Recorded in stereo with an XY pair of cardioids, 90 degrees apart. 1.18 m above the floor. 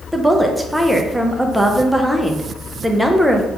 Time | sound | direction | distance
0.1 | a woman speaking | 5° right | 0.6 m